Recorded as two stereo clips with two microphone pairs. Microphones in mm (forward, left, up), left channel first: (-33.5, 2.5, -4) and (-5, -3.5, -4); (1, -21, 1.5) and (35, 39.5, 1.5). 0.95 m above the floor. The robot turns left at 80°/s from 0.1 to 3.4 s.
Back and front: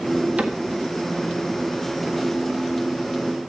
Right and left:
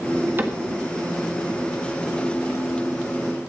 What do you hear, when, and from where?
0.4 s a cupboard door: 10° left, 1.5 m; by 0.6 s 5° right, 1.5 m